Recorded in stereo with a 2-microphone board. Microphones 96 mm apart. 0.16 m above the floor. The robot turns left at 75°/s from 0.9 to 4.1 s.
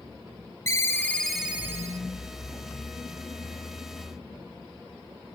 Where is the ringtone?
30° left, 0.8 m; by 2.0 s 50° right, 0.8 m.